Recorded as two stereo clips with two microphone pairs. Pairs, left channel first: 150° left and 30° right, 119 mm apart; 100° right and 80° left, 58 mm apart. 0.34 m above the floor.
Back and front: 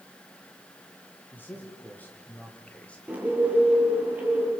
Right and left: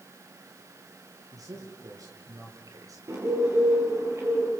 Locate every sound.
1.3 s a man speaking: 75° left, 7.5 m; by 3.0 s 70° left, 5 m
3.1 s a bird: 45° left, 8.5 m